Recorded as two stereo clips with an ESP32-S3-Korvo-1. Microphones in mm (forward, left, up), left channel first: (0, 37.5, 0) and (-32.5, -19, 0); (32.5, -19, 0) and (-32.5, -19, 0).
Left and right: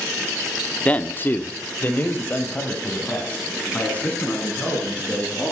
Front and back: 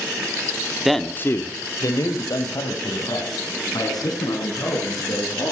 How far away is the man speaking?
About 0.8 m.